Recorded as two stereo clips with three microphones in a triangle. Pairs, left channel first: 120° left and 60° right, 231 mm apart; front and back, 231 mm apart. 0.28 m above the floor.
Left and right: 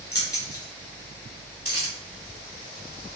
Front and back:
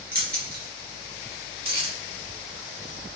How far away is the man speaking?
No man speaking in this recording.